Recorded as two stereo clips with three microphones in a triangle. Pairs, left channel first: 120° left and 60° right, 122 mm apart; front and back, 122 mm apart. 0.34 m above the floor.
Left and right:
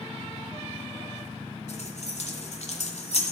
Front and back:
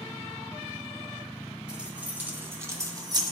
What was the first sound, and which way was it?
Keys jangling, 100° left.